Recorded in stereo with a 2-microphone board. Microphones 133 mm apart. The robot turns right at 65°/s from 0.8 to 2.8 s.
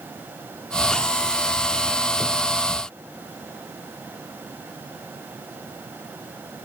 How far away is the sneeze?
No sneeze in this recording.